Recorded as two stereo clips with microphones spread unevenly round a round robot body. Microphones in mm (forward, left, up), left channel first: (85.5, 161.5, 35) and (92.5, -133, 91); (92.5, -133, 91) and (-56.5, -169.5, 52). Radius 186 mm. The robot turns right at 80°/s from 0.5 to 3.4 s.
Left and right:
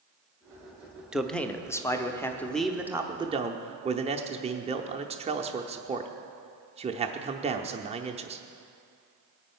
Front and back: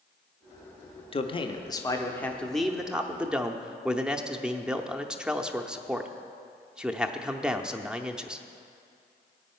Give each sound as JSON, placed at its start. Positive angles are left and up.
{"t": 1.1, "sound": "a man speaking", "azimuth_deg": 25, "distance_m": 0.8}